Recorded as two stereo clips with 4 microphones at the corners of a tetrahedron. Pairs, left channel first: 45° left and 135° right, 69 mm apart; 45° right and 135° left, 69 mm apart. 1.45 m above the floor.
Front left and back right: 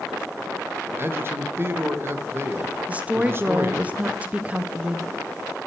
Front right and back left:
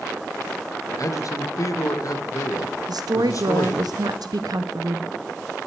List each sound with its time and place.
1.0 s a man speaking: 80° right, 1.5 m
2.9 s a woman speaking: 155° left, 0.7 m